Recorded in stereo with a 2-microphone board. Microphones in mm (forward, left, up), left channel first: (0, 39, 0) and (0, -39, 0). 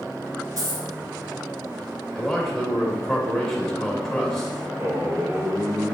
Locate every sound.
0.6 s a dropped coin: 45° right (ahead or behind), 1.8 m
2.1 s a man speaking: 5° left (ahead or behind), 1.0 m
4.8 s a man speaking: 25° right (ahead or behind), 1.0 m